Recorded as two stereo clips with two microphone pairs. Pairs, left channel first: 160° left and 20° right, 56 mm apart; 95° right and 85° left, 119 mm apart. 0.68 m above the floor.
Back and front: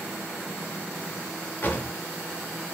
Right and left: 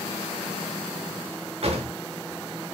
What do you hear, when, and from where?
1.6 s a drawer: 110° left, 0.6 m